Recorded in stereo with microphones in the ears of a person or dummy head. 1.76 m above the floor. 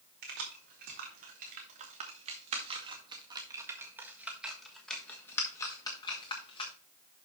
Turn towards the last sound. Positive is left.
turn(degrees=30)  # may be behind; listen again after turning